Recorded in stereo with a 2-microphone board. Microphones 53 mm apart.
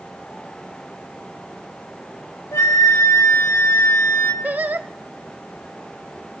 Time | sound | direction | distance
2.5 | a flute | 70° left (ahead or behind) | 3.5 m
4.4 | singing | 35° right (ahead or behind) | 0.7 m